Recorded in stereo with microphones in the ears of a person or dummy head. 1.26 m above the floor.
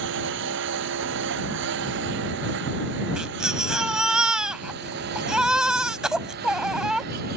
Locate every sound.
0.0 s a lawn mower: 65° right (ahead or behind); by 7.4 s 55° right (ahead or behind)
3.2 s a baby crying: 5° right (ahead or behind)